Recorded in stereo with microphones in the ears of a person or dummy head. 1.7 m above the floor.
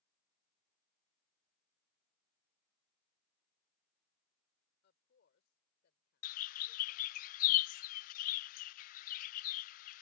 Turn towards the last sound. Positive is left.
turn(degrees=60)  # may be behind; listen again after turning